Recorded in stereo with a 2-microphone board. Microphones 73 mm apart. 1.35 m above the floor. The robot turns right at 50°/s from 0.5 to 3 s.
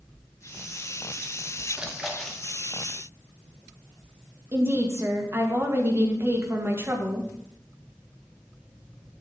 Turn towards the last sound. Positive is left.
turn(degrees=-35)  # may be behind; listen again after turning